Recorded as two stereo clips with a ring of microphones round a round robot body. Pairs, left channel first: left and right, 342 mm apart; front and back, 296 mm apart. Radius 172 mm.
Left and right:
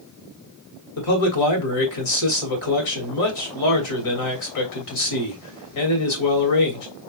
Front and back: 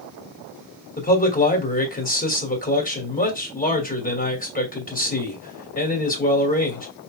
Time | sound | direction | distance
1.0 | a man speaking | 60° left | 3 m